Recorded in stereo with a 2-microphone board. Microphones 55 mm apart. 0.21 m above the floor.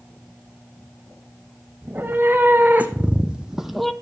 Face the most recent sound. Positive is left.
turn(degrees=5)  # may be behind; listen again after turning